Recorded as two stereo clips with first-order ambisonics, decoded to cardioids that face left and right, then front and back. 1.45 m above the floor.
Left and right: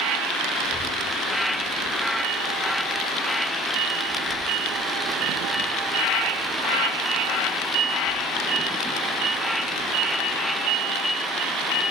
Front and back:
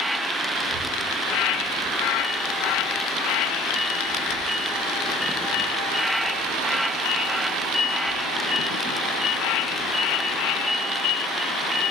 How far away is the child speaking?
About 6.5 m.